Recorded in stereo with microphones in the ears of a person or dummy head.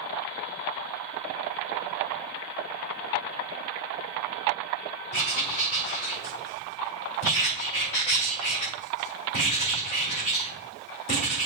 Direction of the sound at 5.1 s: 55° left (ahead or behind).